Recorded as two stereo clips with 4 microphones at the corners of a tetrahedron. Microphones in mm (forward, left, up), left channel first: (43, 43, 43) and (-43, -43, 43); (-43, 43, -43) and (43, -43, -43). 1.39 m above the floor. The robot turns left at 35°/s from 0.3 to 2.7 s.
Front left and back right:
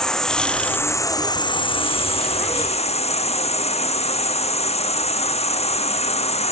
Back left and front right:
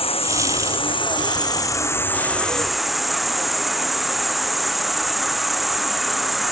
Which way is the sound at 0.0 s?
130° left.